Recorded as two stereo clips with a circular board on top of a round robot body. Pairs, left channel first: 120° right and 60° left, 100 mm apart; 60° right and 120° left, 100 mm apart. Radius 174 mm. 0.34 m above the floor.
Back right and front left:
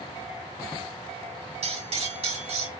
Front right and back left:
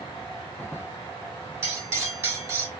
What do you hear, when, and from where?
1.6 s cutlery clinking: 50° left, 5 m